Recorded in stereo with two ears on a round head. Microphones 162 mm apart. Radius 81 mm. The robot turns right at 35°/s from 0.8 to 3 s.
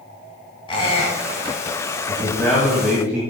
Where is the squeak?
30° left (ahead or behind), 3 m; by 1.6 s 55° left (ahead or behind), 3 m.